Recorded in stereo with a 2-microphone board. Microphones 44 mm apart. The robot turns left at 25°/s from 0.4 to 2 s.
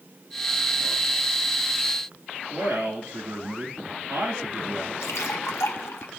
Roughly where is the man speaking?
Right.